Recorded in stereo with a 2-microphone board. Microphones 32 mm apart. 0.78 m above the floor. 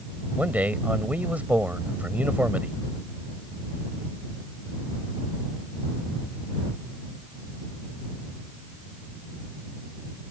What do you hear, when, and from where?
0.4 s a man speaking: 60° right (ahead or behind)